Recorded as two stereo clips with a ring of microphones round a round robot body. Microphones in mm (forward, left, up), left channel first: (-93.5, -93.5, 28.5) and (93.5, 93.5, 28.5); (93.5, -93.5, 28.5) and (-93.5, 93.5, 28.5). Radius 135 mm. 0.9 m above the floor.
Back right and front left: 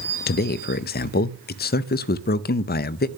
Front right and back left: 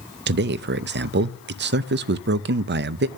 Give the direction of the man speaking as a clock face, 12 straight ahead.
6 o'clock.